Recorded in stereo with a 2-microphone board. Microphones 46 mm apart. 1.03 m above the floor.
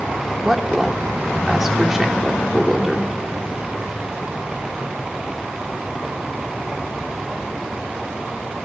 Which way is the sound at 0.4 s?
10° right (ahead or behind).